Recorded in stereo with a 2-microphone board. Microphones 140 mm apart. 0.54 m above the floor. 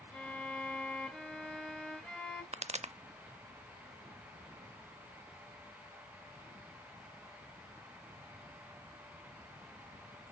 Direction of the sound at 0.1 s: 5° left (ahead or behind).